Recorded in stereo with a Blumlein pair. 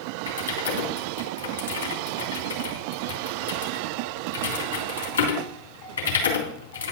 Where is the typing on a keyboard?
65° left, 3.5 m.